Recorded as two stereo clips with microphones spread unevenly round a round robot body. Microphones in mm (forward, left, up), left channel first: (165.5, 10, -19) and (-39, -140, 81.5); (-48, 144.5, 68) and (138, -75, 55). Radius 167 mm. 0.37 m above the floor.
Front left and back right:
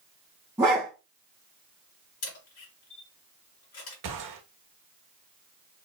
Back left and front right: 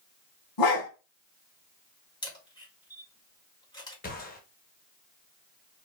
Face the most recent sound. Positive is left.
turn(degrees=-170)